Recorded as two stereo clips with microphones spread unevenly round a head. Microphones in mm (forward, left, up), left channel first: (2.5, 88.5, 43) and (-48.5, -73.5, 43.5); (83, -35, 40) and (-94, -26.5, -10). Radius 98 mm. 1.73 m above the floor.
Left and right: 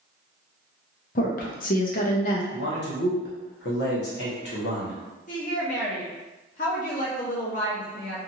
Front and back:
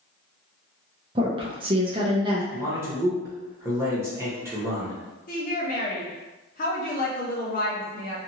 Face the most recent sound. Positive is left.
turn(degrees=25)